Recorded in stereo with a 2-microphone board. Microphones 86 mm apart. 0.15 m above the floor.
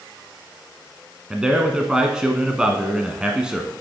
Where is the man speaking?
10° right (ahead or behind), 1.1 m.